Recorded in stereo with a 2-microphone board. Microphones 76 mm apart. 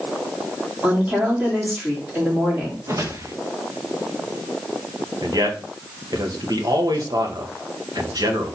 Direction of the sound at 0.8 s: 20° right (ahead or behind).